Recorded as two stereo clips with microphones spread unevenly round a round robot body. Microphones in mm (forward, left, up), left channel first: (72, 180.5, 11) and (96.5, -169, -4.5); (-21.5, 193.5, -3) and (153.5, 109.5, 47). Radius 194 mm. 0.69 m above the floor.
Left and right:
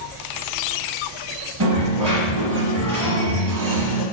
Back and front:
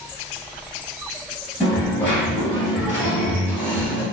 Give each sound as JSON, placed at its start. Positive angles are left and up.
{"t": 1.6, "sound": "a dropped coin", "azimuth_deg": -85, "distance_m": 1.4}